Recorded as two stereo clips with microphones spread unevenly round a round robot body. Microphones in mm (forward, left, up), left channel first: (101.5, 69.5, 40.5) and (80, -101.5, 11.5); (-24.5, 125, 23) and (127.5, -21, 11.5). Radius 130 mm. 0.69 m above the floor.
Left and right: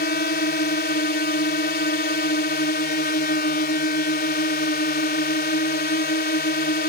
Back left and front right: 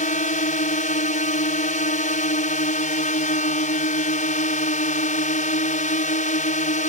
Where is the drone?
95° left.